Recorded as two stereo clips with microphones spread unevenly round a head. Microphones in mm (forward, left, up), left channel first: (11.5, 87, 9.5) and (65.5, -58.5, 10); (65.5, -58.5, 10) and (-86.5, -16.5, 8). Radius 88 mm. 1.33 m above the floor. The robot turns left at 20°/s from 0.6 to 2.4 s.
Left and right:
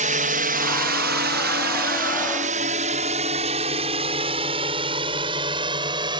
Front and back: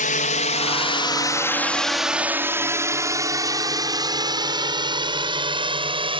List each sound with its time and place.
0.0 s a drone: 40° right; by 6.2 s 140° right